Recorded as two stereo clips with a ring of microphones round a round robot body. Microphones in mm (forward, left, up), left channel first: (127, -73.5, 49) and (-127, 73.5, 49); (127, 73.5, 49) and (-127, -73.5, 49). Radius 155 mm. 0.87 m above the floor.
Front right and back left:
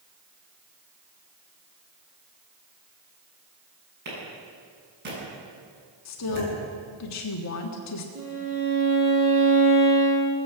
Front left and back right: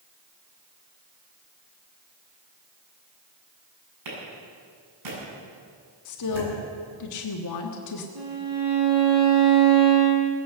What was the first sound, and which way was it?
A clap, 155° right.